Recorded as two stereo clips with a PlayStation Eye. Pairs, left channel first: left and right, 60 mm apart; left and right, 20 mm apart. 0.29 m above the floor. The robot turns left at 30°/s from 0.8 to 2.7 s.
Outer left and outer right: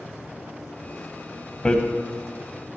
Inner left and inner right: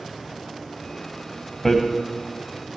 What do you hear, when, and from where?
1.6 s hammering: 20° left (ahead or behind), 1.4 m